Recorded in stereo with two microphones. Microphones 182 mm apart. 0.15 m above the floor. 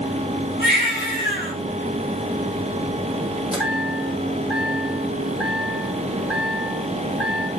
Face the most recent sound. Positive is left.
turn(degrees=-5)  # may be behind; listen again after turning